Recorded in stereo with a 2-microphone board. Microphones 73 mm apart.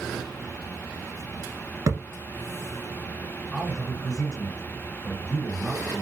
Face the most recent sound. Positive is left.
turn(degrees=10)  # may be behind; listen again after turning